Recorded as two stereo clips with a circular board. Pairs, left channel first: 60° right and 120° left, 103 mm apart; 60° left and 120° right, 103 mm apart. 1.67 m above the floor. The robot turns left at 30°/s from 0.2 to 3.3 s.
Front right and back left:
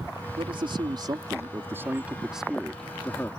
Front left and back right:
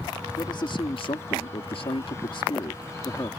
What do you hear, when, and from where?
0.4 s a man speaking: 95° left; by 3.3 s 10° left